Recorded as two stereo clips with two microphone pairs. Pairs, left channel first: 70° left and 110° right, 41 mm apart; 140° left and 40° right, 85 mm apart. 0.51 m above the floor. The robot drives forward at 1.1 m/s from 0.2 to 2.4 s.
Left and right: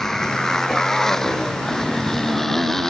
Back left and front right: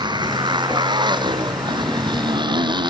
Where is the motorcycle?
10° right; by 2.9 s 15° right.